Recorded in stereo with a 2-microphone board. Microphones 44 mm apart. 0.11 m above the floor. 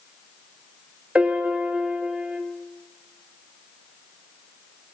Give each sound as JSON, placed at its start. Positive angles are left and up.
{"t": 1.1, "sound": "a piano", "side_deg": -30, "distance_m": 2.5}